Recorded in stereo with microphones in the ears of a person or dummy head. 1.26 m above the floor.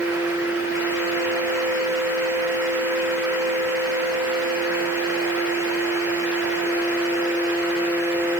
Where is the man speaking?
No man speaking in this recording.